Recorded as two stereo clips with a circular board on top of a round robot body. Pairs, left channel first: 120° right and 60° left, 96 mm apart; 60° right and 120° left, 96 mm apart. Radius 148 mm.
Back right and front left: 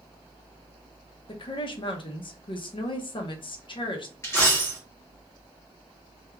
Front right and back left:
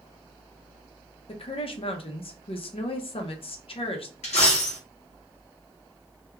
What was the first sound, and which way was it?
A woman speaking, 85° right.